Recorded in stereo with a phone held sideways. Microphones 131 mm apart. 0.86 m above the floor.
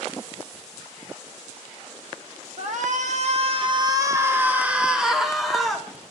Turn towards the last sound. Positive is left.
turn(degrees=0)  # may be behind; listen again after turning